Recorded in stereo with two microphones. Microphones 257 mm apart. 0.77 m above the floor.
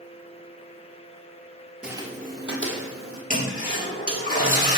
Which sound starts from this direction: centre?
Footsteps, at 1.8 s.